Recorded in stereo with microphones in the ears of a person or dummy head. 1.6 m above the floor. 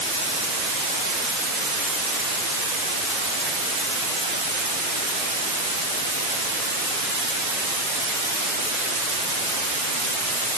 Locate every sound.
Only background noise.